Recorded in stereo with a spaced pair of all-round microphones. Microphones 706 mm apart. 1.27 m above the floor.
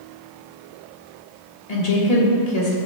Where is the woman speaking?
60° left (ahead or behind), 1.8 m.